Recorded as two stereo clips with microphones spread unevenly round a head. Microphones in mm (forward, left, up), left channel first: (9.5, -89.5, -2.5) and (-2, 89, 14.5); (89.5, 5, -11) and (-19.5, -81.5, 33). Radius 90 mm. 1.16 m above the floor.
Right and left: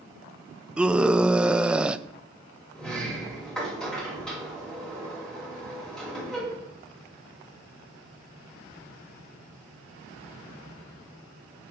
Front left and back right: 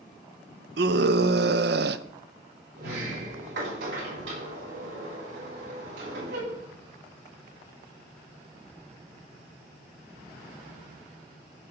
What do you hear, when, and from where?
0.8 s a scream: straight behind, 0.6 m
2.8 s a sliding door: 170° right, 5.5 m